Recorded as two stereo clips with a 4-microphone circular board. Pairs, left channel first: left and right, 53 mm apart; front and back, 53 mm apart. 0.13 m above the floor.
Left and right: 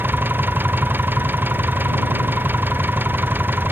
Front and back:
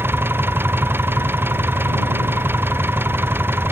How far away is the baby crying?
I don't hear a baby crying.